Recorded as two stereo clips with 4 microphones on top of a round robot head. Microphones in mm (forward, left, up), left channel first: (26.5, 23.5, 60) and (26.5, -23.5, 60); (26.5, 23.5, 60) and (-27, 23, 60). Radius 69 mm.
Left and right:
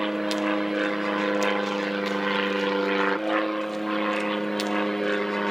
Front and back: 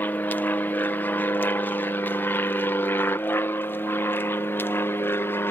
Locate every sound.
0.0 s an aircraft: 10° right; by 5.5 s 10° left